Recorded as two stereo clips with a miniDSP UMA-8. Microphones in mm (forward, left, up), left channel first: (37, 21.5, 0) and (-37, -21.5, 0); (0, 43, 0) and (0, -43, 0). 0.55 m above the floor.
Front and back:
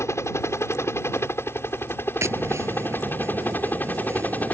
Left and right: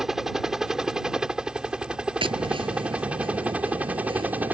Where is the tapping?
95° right.